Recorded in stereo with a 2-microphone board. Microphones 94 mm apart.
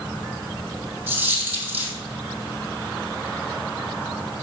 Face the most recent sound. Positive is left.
turn(degrees=-20)  # may be behind; listen again after turning